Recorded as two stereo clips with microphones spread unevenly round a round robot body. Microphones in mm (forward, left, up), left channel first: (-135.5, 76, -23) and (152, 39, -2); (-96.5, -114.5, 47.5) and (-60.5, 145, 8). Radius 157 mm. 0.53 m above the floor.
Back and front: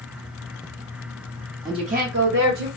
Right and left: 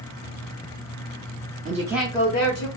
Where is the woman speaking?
70° left, 0.8 m; by 2.7 s 55° right, 1.1 m.